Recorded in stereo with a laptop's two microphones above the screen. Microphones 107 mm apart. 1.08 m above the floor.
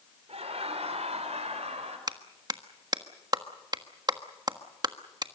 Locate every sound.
0.3 s laughter: 75° right (ahead or behind), 4 m; by 2.0 s 80° right, 5.5 m
2.1 s a clap: 40° right (ahead or behind), 1.4 m